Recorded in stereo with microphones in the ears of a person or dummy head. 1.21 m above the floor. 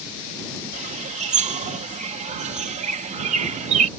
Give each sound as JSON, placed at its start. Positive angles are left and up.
{"t": 0.7, "sound": "a bird", "side_deg": -35}